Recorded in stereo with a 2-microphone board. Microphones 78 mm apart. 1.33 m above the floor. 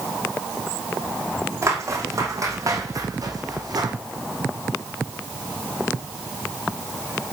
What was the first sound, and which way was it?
Footsteps, 35° right (ahead or behind).